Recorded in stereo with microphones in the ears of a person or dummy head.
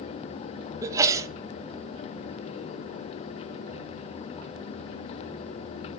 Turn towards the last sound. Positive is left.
turn(degrees=-20)  # may be behind; listen again after turning